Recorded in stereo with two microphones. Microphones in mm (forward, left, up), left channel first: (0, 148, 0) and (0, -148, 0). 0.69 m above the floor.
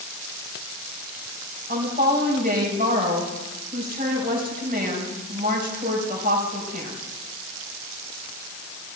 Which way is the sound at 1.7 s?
30° right (ahead or behind).